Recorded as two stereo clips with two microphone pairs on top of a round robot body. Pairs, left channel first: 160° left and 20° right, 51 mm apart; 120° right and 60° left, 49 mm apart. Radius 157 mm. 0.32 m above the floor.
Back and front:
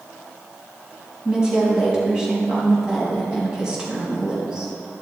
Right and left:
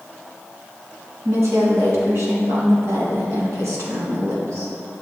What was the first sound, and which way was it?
A woman speaking, 55° left.